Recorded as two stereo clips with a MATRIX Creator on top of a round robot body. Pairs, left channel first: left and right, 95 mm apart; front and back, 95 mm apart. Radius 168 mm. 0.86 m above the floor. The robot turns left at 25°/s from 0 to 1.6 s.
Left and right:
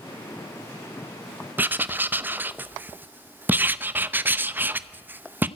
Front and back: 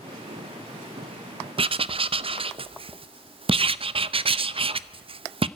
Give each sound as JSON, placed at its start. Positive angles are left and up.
{"t": 1.6, "sound": "writing", "azimuth_deg": -160, "distance_m": 0.9}